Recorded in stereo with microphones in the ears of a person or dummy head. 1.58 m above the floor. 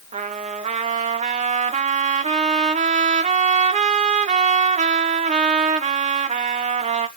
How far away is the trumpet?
About 1.0 m.